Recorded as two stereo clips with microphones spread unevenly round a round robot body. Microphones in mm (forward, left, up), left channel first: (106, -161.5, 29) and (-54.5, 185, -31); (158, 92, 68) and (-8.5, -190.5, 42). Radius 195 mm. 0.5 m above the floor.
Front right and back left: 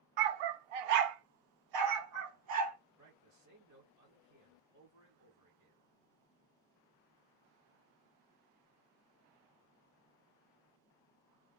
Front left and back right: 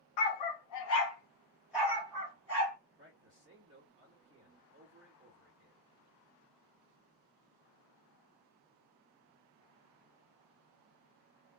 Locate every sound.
0.2 s a dog barking: 75° left, 0.6 m; by 2.8 s 170° left, 1.3 m
3.0 s a man speaking: 175° left, 1.6 m